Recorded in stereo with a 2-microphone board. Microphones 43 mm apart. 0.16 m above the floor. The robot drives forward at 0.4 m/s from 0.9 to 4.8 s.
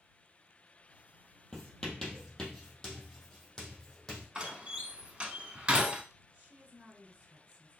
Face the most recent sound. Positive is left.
turn(degrees=-25)  # may be behind; listen again after turning